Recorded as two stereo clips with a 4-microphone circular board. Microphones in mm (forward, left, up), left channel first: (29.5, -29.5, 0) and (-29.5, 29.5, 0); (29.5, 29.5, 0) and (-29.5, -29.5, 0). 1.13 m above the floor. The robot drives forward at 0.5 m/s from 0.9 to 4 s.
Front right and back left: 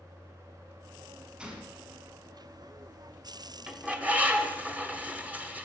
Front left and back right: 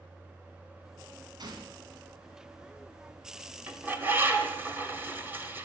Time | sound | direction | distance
1.4 | a gunshot | 150° right | 1.7 m
3.7 | a bird | 165° right | 0.9 m